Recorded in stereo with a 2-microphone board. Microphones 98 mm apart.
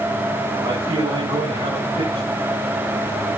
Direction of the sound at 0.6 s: 75° right (ahead or behind).